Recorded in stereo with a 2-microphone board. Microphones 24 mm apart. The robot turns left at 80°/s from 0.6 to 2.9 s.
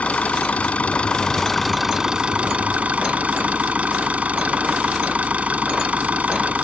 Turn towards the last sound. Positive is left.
turn(degrees=-95)